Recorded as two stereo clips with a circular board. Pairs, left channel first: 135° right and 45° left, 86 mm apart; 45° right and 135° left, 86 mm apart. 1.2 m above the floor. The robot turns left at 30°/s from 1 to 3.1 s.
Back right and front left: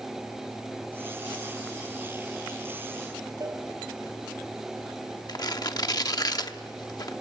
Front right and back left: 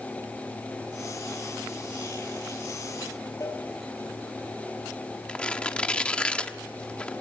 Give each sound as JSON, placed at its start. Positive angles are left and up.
{"t": 3.4, "sound": "a cowbell", "azimuth_deg": 0, "distance_m": 2.0}
{"t": 5.3, "sound": "tearing paper", "azimuth_deg": -120, "distance_m": 0.9}